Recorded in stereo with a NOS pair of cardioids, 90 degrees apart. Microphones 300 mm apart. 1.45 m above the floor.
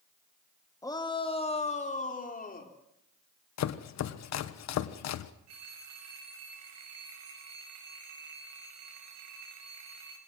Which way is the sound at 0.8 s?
10° left.